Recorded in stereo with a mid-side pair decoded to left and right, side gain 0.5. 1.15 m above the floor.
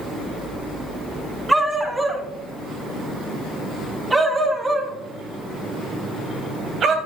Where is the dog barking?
10° right, 4.5 m; by 7.0 s 60° right, 2.5 m.